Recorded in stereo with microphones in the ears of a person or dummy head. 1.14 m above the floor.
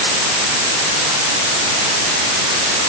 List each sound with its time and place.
Only background noise.